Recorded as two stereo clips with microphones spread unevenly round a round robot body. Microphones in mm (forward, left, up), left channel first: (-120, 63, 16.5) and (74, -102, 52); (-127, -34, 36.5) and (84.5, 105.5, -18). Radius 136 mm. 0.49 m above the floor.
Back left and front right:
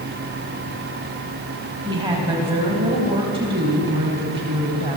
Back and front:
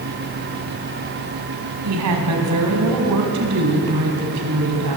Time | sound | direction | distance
1.9 | a woman speaking | 35° left | 4.5 m